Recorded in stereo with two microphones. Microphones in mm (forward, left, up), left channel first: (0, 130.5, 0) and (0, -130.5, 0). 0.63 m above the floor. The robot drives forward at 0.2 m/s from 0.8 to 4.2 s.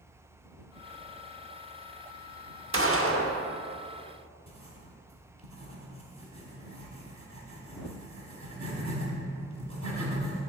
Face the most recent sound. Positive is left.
turn(degrees=-80)